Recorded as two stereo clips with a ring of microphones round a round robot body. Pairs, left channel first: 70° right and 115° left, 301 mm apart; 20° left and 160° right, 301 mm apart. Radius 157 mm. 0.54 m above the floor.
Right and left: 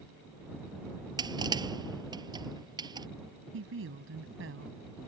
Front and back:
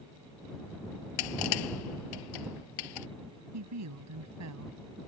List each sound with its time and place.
1.2 s crushing: 35° left
3.5 s a woman speaking: 165° left